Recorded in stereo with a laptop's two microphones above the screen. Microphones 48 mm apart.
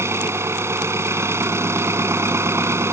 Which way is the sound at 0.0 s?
70° right (ahead or behind).